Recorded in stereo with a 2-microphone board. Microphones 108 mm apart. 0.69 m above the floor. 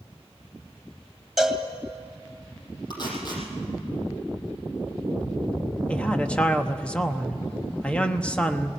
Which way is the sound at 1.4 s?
Centre (ahead or behind).